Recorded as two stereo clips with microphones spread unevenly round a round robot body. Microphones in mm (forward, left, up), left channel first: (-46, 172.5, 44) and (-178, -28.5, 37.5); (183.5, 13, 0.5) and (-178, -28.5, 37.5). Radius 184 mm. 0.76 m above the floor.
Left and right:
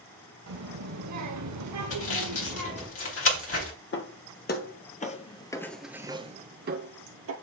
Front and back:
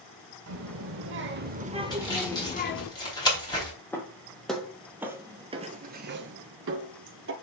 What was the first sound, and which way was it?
A child speaking, 120° right.